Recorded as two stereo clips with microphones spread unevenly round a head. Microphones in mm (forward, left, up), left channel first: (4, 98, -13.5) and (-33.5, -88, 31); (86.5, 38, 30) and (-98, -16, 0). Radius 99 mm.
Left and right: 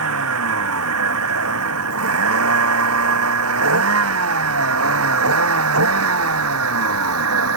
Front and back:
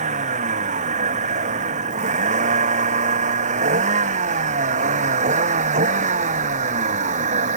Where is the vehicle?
105° right.